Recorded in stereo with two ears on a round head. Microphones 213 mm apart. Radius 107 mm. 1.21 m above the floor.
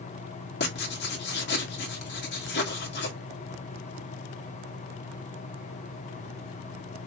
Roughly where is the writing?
Left.